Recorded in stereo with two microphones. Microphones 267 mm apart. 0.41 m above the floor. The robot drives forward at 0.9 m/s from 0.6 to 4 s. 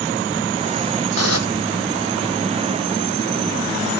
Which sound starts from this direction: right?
Dishes clattering, at 1.2 s.